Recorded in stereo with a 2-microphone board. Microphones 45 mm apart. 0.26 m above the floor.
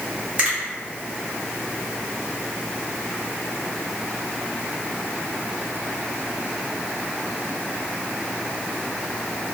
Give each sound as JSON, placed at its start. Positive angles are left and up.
{"t": 0.4, "sound": "a finger snap", "side_deg": -30, "distance_m": 1.7}